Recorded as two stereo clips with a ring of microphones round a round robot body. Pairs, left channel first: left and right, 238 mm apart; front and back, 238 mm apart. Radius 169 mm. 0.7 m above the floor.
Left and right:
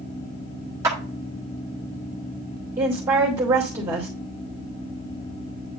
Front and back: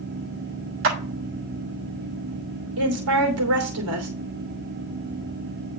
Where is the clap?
170° right, 1.2 m.